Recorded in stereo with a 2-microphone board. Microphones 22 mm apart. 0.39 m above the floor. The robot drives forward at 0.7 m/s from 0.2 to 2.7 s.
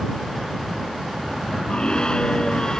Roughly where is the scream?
Left.